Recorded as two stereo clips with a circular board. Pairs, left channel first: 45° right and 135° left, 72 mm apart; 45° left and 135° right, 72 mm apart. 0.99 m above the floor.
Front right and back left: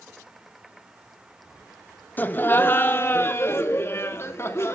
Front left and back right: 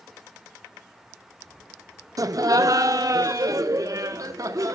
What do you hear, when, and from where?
2.2 s laughter: 105° right, 1.1 m; by 4.8 s 95° right, 2.5 m